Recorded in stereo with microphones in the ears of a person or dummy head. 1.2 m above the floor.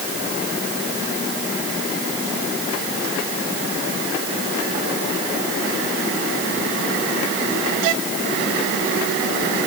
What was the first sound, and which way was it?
Only background noise.